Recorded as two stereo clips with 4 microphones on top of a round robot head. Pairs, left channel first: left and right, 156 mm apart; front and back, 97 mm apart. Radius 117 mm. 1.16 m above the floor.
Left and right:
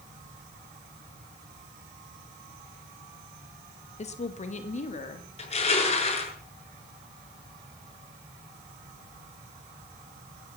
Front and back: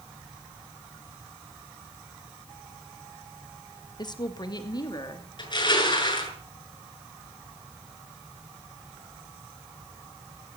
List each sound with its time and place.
4.0 s a woman speaking: 45° left, 1.5 m; by 5.3 s 50° left, 3 m
5.4 s crushing: 40° left, 7.5 m